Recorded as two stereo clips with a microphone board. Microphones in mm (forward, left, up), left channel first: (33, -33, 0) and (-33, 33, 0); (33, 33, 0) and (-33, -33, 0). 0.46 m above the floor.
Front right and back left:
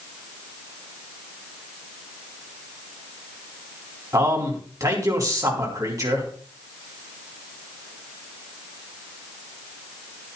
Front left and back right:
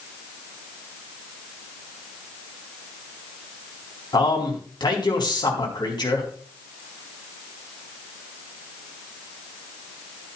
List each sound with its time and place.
4.1 s a man speaking: 85° left, 4 m